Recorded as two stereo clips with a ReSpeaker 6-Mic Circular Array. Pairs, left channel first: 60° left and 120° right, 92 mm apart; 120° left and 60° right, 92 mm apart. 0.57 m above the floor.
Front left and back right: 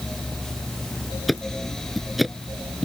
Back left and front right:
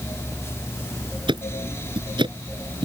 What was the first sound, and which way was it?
Ticking, 30° right.